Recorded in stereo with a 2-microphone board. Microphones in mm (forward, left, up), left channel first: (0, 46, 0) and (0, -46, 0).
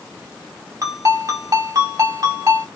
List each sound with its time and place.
0.8 s a ringtone: 40° right (ahead or behind), 2.0 m